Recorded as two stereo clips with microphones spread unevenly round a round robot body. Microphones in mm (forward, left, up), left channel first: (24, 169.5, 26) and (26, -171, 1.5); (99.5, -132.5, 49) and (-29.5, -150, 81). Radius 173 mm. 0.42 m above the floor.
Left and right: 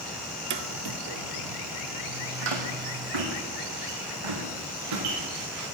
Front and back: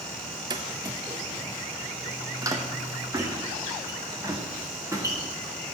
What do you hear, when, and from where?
0.5 s footsteps: 145° right, 0.5 m; by 5.8 s 105° right, 3.5 m